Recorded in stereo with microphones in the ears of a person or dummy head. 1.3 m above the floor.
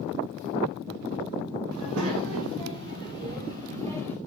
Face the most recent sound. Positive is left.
turn(degrees=-35)  # may be behind; listen again after turning